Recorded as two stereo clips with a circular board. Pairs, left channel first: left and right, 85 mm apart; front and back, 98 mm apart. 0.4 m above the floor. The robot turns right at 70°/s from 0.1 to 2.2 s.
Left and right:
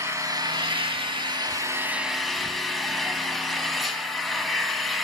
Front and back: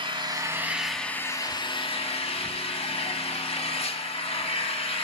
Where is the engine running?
145° right, 0.8 m; by 5.0 s straight ahead, 0.8 m.